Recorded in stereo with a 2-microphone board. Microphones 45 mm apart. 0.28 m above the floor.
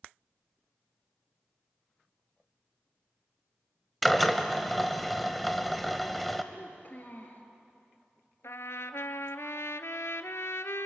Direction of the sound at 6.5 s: 45° left (ahead or behind).